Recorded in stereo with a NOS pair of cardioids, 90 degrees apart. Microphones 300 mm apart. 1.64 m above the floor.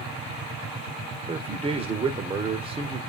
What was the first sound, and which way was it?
A man speaking, 20° right.